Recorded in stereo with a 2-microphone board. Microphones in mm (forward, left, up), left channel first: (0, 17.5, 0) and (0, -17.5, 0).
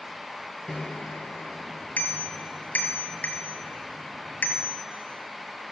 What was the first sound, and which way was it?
A bicycle bell, 55° left (ahead or behind).